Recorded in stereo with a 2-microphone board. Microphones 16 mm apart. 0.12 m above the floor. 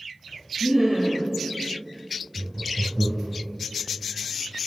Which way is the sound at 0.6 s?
Centre (ahead or behind).